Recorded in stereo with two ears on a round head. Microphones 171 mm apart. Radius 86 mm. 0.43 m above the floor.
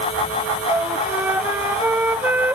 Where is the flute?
10° right (ahead or behind).